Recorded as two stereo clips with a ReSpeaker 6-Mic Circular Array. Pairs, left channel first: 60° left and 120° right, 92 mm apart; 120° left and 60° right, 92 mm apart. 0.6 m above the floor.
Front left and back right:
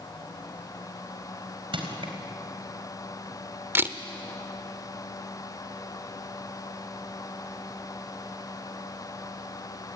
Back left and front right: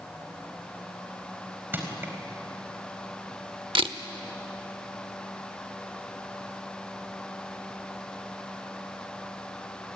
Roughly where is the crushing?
Behind right.